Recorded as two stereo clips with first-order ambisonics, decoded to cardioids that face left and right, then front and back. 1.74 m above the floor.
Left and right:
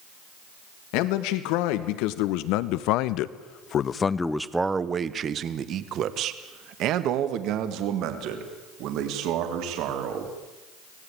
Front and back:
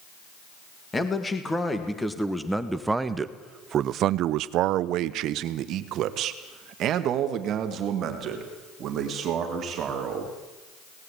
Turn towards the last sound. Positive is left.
turn(degrees=-125)